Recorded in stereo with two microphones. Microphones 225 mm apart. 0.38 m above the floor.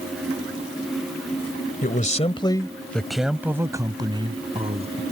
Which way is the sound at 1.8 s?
40° left (ahead or behind).